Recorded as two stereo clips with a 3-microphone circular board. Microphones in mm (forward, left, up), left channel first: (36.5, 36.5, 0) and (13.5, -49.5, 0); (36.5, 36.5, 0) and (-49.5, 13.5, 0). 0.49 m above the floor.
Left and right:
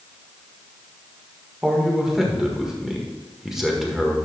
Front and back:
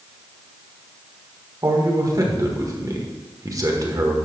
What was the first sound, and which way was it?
A man speaking, 170° left.